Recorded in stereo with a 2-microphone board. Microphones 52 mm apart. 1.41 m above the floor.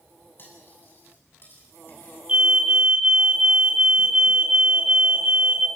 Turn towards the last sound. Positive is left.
turn(degrees=-25)  # may be behind; listen again after turning